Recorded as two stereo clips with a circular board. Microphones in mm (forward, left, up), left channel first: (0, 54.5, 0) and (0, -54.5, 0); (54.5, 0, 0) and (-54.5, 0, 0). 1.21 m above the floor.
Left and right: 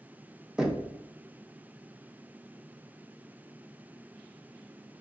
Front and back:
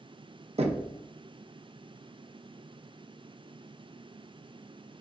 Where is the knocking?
170° right, 0.6 m.